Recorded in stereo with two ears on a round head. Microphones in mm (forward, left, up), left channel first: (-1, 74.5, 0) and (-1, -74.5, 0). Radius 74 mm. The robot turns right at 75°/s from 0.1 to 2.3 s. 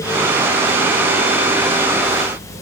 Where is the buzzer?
I don't hear a buzzer.